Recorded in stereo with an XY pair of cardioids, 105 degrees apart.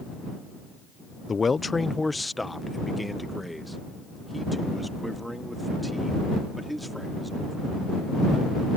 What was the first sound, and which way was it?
A man speaking, 30° left.